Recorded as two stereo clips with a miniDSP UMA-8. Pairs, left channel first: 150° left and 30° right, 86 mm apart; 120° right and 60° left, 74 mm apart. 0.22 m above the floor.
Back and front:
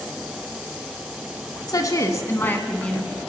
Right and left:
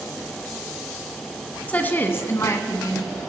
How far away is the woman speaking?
About 1.5 m.